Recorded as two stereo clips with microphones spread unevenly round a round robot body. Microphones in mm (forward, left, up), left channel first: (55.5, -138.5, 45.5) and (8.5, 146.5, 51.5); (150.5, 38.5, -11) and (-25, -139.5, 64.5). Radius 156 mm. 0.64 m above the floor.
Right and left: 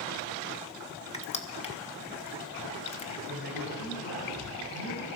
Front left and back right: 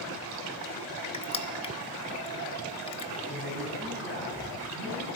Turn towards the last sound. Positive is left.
turn(degrees=-90)